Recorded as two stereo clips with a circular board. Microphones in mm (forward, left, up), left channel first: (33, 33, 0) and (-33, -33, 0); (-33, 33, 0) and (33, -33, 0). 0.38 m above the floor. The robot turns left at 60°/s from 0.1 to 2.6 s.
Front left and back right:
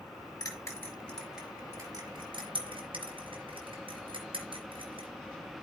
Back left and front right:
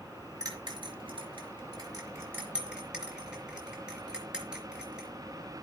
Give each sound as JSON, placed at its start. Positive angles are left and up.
{"t": 0.4, "sound": "a bell", "azimuth_deg": 5, "distance_m": 4.0}